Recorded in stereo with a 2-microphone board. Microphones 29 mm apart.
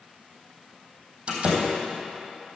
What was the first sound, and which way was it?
A door slam, 35° right (ahead or behind).